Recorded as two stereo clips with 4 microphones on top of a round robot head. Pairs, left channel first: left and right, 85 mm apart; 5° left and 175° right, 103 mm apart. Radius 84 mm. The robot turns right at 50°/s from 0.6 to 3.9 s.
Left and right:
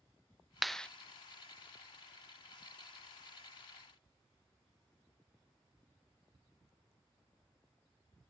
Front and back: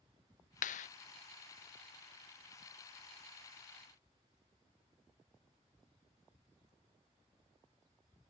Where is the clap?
Straight ahead; by 0.9 s 10° left.